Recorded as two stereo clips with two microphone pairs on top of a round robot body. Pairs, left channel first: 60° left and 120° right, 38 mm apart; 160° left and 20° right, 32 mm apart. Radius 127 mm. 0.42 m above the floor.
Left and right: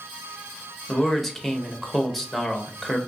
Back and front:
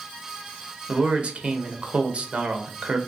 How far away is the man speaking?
About 1.0 m.